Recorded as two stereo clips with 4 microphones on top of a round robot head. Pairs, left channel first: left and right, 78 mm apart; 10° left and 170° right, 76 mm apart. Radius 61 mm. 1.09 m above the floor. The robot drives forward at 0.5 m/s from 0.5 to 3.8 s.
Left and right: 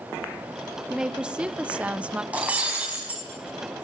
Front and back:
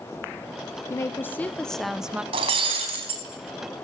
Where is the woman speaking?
15° right, 0.8 m; by 2.2 s 135° right, 0.7 m.